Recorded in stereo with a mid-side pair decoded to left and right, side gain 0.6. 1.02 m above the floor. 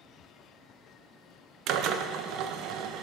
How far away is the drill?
About 0.5 m.